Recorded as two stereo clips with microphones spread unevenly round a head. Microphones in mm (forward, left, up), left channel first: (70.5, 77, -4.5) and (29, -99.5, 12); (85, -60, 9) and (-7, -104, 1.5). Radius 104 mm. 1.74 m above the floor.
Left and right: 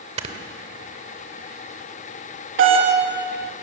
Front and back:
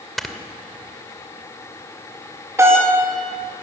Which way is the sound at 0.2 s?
60° right.